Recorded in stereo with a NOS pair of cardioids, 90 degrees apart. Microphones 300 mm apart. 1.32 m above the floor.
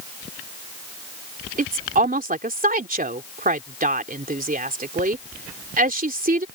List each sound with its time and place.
1.6 s a woman speaking: 30° right